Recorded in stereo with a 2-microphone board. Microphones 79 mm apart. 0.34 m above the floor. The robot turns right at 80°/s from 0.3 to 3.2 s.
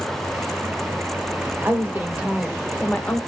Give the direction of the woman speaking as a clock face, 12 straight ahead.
2 o'clock.